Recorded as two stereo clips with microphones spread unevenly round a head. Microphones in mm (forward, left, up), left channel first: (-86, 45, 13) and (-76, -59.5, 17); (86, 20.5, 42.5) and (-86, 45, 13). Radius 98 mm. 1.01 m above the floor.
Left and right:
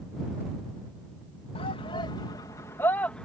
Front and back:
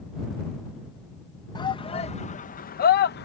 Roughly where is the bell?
I don't hear a bell.